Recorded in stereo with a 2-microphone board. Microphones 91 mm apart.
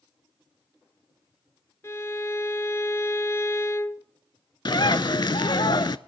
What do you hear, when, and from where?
1.8 s a violin: 30° left (ahead or behind), 0.5 m
4.7 s a bird: 55° left (ahead or behind), 0.5 m